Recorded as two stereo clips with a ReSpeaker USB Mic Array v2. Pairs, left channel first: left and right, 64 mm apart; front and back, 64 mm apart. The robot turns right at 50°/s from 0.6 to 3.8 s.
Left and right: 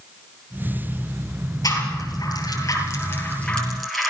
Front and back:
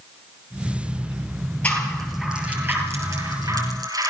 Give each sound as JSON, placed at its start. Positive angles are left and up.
{"t": 1.6, "sound": "a rattle", "azimuth_deg": 70, "distance_m": 7.0}